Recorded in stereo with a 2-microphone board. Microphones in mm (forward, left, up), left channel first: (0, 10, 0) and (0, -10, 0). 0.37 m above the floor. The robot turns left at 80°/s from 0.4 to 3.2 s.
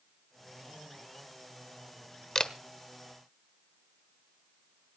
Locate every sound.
2.4 s a camera shutter: 30° left (ahead or behind), 1.1 m; by 2.5 s 35° left (ahead or behind), 1.1 m